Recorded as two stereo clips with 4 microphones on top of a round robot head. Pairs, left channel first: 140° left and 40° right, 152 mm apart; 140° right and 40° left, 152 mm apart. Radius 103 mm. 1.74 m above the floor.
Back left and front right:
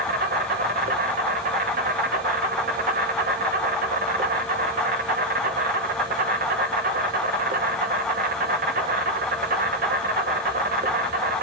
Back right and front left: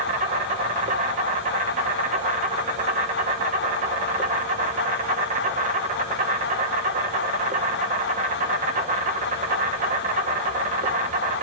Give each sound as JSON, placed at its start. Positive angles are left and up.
{"t": 0.0, "sound": "an insect", "azimuth_deg": -5, "distance_m": 1.4}